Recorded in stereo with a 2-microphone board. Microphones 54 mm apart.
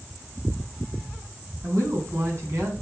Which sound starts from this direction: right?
A woman speaking, at 1.6 s.